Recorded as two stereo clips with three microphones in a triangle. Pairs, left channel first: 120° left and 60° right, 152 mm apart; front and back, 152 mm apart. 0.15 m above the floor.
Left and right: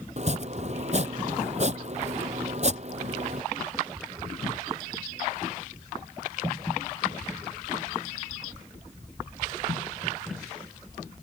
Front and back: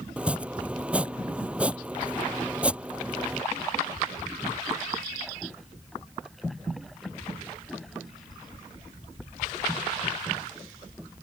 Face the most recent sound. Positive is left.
turn(degrees=-100)